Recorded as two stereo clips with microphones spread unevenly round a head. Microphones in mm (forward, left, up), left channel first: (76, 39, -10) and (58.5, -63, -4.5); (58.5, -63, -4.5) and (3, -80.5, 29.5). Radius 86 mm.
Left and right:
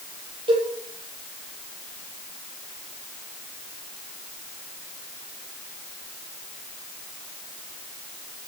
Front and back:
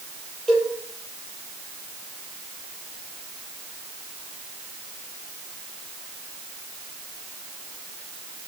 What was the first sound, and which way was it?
A cowbell, 65° right.